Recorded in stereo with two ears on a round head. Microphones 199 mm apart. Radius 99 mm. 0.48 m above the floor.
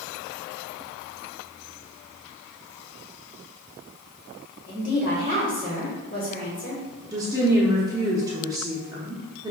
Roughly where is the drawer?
No drawer in this recording.